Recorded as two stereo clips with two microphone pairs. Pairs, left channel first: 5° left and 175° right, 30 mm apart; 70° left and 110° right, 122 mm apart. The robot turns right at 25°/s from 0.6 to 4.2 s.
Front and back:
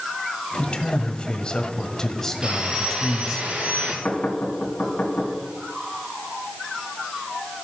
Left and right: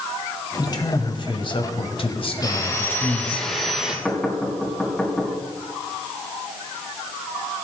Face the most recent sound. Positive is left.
turn(degrees=-20)